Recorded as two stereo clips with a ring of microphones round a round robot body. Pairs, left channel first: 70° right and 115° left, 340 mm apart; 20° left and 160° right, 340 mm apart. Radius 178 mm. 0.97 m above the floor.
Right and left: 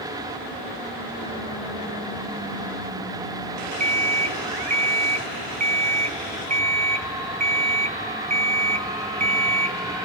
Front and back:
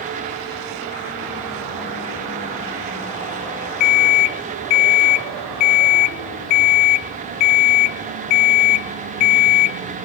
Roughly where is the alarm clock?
Ahead left.